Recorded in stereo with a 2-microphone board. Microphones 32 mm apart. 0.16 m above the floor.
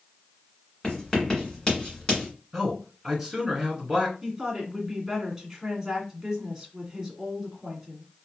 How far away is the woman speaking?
About 1.8 m.